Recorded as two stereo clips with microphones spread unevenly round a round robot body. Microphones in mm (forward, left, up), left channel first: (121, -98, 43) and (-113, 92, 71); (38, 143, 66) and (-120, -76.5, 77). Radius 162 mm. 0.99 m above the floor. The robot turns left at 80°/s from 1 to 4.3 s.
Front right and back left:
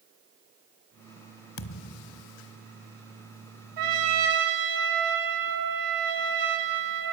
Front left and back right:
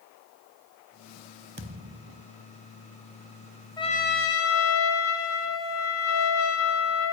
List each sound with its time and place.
1.6 s a thud: 75° right, 1.2 m; by 2.3 s 130° right, 1.2 m
3.8 s a trumpet: 130° left, 4.5 m; by 7.1 s 85° left, 4.5 m